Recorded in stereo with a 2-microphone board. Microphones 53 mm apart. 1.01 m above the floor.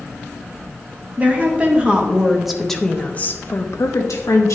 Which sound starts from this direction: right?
A woman speaking, at 1.2 s.